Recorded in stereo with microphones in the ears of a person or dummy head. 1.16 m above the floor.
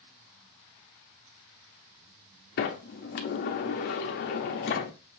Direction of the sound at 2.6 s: 40° left (ahead or behind).